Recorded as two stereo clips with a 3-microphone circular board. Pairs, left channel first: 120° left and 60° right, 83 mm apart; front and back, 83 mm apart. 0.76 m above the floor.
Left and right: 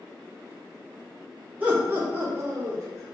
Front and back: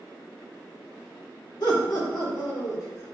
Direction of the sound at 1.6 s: 5° left.